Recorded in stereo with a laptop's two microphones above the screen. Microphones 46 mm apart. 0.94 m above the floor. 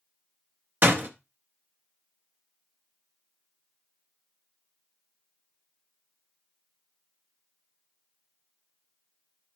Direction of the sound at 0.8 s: 45° right (ahead or behind).